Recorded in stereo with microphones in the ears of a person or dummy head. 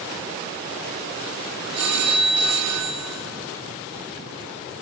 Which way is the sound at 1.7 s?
80° right.